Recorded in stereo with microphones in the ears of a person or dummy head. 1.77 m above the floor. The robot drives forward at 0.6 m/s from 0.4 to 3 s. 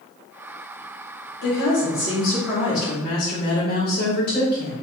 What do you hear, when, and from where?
1.4 s a woman speaking: 60° left (ahead or behind), 1.3 m; by 4.7 s 50° left (ahead or behind), 1.5 m